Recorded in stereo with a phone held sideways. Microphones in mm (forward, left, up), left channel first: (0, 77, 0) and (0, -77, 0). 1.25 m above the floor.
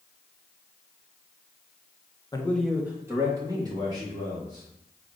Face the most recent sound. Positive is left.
turn(degrees=-30)  # may be behind; listen again after turning